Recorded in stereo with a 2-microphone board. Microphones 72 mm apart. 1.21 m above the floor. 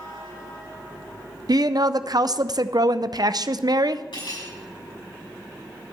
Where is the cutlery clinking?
80° left, 6 m.